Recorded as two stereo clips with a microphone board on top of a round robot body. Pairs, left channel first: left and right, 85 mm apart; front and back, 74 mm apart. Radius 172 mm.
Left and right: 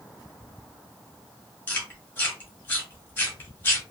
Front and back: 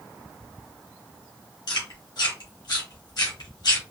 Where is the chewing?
20° left, 1.2 m.